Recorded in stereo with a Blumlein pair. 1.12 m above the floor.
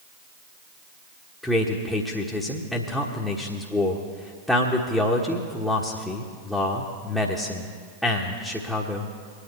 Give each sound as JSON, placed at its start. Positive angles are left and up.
{"t": 1.4, "sound": "a man speaking", "azimuth_deg": 5, "distance_m": 1.4}